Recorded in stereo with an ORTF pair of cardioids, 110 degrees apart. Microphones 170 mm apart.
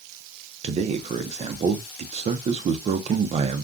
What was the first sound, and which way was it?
A man speaking, 40° right.